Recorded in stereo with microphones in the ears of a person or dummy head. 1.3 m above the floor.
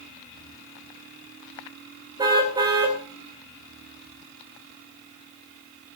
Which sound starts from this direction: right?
A car horn, at 2.2 s.